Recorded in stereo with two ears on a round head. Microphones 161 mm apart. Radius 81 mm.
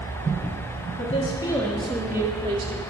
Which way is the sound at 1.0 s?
40° left (ahead or behind).